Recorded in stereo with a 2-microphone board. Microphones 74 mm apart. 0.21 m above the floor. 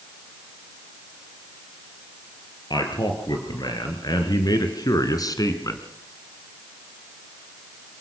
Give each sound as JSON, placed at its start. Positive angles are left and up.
{"t": 2.7, "sound": "a man speaking", "side_deg": 70, "distance_m": 4.5}